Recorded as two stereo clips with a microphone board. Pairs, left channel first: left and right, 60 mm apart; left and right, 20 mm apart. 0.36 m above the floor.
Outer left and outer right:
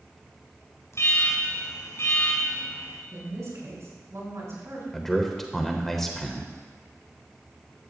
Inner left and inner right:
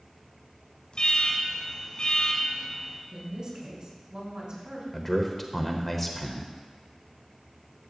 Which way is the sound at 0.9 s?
50° left (ahead or behind).